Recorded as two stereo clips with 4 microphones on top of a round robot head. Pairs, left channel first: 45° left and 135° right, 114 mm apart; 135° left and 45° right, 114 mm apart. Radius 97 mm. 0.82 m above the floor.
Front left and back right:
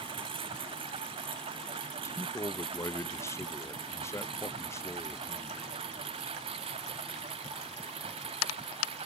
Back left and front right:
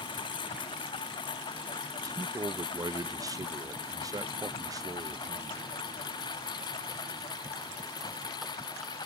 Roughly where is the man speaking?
Ahead.